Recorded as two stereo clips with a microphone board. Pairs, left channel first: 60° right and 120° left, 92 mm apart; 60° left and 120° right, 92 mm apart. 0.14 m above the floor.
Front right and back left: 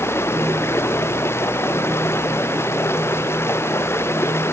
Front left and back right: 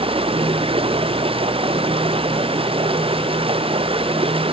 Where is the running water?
125° right.